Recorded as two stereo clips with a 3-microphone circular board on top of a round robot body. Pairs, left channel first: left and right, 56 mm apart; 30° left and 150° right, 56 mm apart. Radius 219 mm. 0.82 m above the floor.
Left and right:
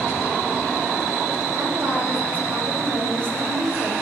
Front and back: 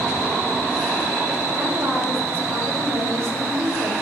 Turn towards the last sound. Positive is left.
turn(degrees=-120)